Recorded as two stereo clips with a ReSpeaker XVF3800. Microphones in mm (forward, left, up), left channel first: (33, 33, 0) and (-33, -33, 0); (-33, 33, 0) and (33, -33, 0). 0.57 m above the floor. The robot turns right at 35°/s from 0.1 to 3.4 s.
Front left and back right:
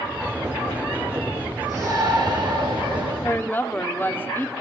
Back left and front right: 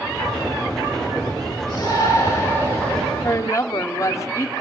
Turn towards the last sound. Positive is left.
turn(degrees=100)